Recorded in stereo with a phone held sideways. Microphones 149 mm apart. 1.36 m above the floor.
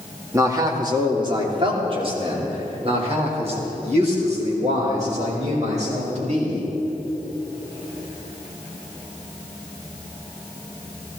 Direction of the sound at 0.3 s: 20° right (ahead or behind).